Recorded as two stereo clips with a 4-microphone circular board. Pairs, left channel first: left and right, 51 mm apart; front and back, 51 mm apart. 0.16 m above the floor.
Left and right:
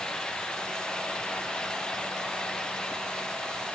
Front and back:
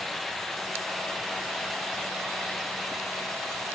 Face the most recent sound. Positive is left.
No sound to turn to.